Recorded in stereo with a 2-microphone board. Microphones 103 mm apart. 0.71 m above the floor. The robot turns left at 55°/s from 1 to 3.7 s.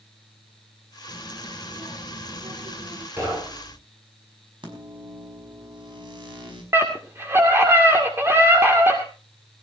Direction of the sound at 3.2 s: 20° right (ahead or behind).